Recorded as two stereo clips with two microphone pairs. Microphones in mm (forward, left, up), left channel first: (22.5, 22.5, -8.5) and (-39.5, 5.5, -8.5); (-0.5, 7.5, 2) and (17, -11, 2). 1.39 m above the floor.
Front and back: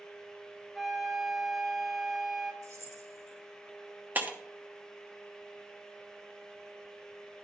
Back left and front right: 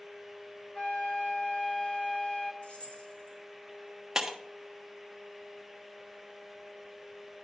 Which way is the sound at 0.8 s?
105° left.